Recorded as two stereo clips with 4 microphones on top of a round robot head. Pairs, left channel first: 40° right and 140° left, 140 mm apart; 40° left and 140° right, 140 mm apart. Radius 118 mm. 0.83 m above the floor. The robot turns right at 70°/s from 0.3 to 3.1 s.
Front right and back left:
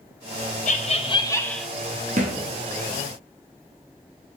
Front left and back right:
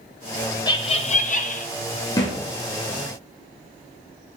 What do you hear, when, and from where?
0.7 s laughter: 20° right, 1.1 m; by 1.7 s 55° left, 1.1 m
2.2 s a thud: 100° left, 1.4 m; by 2.4 s 120° left, 1.4 m